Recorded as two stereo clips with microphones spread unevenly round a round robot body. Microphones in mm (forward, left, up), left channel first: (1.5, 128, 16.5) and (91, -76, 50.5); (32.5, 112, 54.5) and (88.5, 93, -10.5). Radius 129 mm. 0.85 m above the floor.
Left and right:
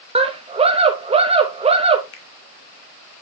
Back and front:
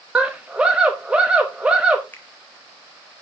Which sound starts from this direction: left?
A finger snap, at 2.1 s.